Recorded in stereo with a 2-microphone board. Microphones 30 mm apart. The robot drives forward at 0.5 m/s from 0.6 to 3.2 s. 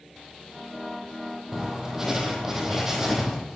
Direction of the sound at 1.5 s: 15° right (ahead or behind).